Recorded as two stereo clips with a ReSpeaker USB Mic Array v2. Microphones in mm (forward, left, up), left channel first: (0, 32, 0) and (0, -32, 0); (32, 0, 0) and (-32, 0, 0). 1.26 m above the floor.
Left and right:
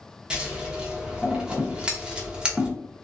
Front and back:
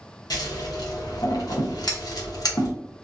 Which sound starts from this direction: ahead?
Scissors, at 0.3 s.